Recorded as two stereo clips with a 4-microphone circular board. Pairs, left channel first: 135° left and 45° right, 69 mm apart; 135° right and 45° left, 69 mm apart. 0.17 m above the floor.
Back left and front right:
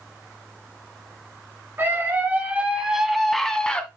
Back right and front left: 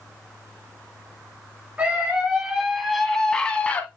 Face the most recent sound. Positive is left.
turn(degrees=-170)